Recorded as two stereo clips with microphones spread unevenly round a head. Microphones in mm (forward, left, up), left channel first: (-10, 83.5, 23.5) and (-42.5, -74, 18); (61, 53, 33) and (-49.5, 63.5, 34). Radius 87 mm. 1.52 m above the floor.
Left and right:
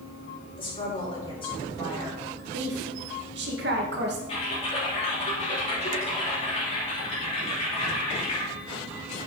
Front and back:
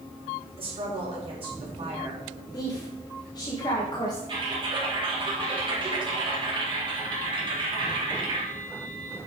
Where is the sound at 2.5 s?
70° right, 1.9 m.